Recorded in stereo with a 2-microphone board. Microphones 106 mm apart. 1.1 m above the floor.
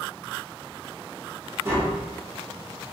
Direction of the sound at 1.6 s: 25° right (ahead or behind).